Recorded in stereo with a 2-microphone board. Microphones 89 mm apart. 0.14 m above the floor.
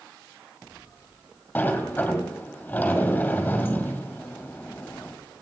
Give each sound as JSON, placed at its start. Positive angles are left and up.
{"t": 1.6, "sound": "a sliding door", "side_deg": 20, "distance_m": 2.0}